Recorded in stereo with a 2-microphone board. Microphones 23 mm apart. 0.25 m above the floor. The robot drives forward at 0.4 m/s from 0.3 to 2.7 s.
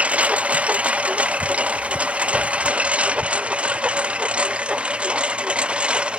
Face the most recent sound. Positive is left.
turn(degrees=-45)  # may be behind; listen again after turning